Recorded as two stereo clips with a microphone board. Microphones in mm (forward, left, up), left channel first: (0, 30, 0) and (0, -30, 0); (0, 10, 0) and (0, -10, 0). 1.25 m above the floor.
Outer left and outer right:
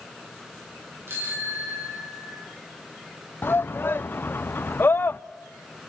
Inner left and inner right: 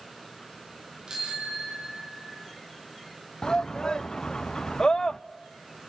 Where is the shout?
35° left (ahead or behind), 0.5 m.